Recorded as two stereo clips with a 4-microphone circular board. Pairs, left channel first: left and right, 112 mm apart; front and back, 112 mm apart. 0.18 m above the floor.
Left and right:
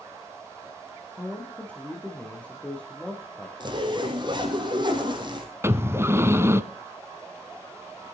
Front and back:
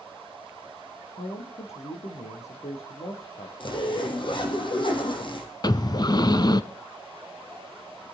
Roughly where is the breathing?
Ahead right.